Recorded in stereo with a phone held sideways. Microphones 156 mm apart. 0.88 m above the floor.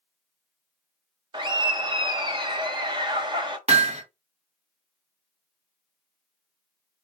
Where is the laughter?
30° right (ahead or behind), 0.8 m.